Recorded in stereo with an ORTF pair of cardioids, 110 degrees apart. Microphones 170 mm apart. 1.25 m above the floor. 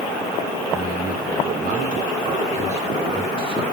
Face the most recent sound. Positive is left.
turn(degrees=-25)